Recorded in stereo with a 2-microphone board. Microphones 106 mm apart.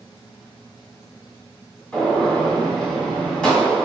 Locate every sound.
1.9 s a gunshot: 10° left (ahead or behind), 1.6 m